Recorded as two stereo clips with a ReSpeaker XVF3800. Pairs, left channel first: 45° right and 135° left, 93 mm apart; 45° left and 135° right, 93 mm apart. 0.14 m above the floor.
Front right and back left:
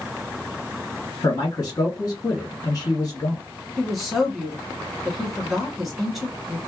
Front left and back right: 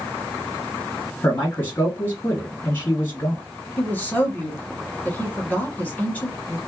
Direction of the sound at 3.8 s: 50° left.